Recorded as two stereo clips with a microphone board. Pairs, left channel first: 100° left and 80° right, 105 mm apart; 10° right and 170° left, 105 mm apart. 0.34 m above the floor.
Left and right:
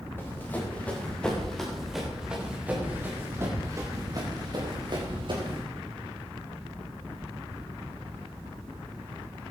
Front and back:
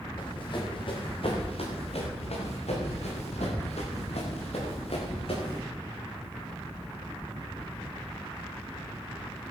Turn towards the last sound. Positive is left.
turn(degrees=-40)